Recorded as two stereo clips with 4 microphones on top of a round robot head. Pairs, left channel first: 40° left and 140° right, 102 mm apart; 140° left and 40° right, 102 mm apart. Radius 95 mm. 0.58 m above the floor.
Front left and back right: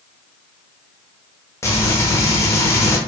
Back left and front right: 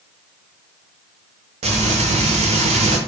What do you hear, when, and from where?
1.6 s frying: 25° right, 0.8 m